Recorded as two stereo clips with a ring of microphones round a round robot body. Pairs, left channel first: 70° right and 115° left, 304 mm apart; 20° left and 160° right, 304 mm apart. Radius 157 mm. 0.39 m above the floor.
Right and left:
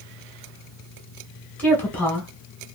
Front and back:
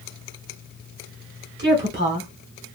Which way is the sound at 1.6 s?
150° right.